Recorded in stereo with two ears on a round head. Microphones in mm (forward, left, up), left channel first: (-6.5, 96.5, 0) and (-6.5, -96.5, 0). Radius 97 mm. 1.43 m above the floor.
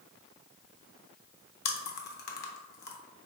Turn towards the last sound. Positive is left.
turn(degrees=50)  # may be behind; listen again after turning